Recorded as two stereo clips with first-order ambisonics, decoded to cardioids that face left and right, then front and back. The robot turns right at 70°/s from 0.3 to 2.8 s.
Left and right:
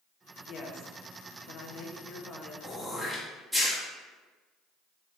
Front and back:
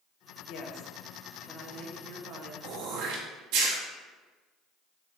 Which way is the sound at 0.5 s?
30° left.